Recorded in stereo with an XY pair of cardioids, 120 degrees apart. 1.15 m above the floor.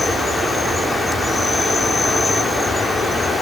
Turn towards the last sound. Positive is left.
turn(degrees=20)